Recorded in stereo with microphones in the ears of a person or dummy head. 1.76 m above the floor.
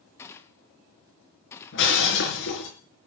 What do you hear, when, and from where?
0.2 s a gunshot: 15° left (ahead or behind), 1.3 m
1.7 s breaking glass: 65° left (ahead or behind), 5 m